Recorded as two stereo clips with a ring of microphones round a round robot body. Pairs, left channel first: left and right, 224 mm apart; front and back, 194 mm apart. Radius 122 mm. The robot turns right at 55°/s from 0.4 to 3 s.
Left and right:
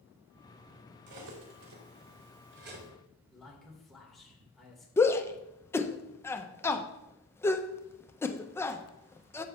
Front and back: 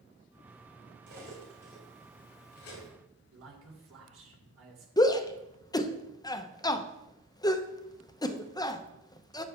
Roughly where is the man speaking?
Behind.